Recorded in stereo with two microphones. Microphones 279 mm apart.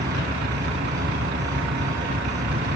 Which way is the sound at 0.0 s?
40° right (ahead or behind).